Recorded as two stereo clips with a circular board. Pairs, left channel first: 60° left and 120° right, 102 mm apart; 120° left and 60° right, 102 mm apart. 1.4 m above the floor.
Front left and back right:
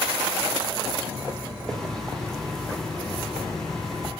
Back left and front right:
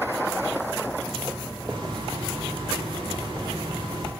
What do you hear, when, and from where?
1.7 s a hiss: 25° right, 1.2 m